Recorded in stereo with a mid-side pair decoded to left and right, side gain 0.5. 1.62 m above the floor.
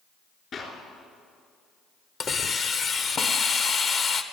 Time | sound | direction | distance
0.5 | a clap | 50° left | 3 m
2.2 | a hiss | 45° left | 1.0 m